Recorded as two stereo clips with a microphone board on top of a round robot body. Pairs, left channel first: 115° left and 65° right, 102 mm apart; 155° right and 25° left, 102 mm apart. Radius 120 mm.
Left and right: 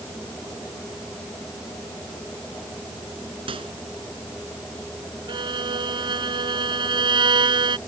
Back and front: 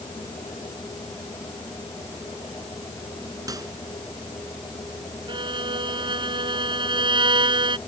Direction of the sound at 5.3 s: 20° right.